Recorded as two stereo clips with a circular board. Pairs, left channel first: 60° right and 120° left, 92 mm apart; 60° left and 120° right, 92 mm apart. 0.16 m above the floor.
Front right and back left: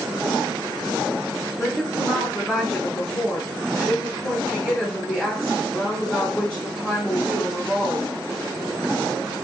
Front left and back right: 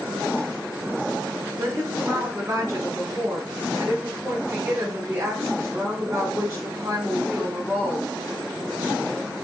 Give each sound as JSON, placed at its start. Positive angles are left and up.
{"t": 1.6, "sound": "a woman speaking", "azimuth_deg": -130, "distance_m": 1.2}